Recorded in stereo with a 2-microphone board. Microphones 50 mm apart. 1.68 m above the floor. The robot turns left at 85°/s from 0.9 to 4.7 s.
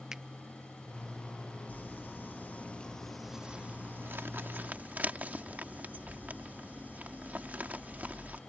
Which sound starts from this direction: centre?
A finger snap, at 0.1 s.